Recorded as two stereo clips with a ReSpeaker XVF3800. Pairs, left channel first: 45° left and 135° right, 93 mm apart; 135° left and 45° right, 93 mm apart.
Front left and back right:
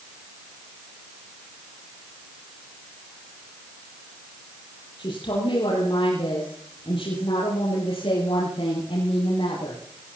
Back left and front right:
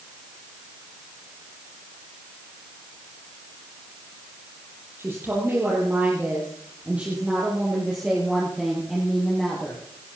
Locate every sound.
5.0 s a woman speaking: 20° left, 5.5 m; by 9.8 s 45° left, 6.5 m